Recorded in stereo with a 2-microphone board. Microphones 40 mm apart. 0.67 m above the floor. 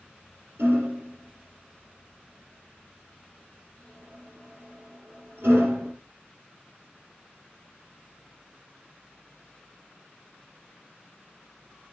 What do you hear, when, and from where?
0.6 s hammering: 75° right (ahead or behind), 4 m